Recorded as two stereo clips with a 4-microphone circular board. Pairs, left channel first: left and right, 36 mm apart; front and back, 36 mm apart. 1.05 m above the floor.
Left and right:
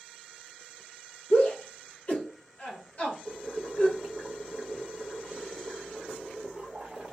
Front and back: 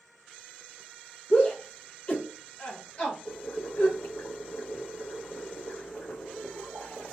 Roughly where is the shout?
Ahead left.